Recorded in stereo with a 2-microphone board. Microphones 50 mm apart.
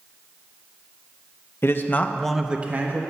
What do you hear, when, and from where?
1.6 s a man speaking: 50° left (ahead or behind), 0.8 m; by 3.0 s 45° right (ahead or behind), 0.8 m